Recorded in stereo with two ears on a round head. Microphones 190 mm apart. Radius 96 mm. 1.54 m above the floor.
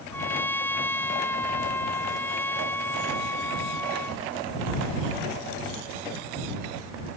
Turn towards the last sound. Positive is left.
turn(degrees=10)  # may be behind; listen again after turning